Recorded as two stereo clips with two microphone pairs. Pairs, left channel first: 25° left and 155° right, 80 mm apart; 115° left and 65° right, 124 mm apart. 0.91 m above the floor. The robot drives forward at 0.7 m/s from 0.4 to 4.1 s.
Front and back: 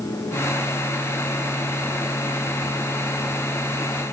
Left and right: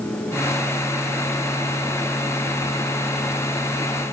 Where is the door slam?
No door slam in this recording.